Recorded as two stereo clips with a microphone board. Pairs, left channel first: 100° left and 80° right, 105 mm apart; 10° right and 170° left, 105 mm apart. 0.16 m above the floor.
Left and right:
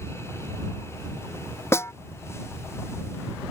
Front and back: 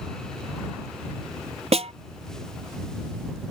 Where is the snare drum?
165° left.